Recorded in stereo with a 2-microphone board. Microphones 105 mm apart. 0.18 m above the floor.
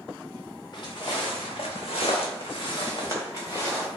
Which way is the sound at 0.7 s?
45° left (ahead or behind).